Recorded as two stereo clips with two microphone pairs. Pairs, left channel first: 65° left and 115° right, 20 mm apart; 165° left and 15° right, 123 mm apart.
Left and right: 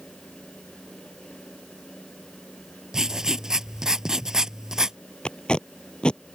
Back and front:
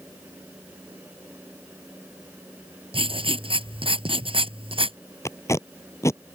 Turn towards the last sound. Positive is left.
turn(degrees=95)